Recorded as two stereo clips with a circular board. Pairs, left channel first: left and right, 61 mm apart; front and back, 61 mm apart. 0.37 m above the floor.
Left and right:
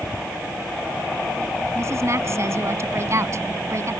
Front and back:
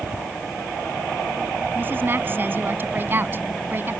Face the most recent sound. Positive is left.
turn(degrees=-125)